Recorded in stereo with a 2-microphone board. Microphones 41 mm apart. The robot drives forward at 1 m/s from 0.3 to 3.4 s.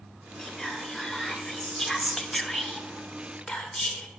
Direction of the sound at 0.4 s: Centre (ahead or behind).